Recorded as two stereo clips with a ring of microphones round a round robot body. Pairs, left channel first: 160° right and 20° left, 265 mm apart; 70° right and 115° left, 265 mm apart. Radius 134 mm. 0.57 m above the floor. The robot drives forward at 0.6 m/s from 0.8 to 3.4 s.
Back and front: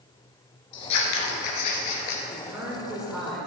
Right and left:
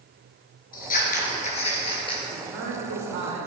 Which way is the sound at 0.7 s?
125° right.